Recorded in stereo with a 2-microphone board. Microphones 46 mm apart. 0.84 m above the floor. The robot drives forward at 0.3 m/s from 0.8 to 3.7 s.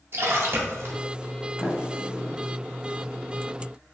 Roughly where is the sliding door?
Left.